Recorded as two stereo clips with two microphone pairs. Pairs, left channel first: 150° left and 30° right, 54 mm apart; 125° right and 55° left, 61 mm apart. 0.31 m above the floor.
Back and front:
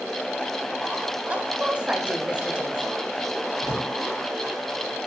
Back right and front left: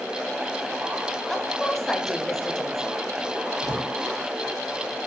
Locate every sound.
1.3 s a woman speaking: 55° right, 1.0 m
3.6 s a drawer: 145° left, 3 m